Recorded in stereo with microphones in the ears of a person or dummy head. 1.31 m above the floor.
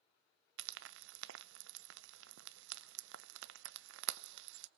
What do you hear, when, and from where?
0.6 s frying: 75° right (ahead or behind), 0.6 m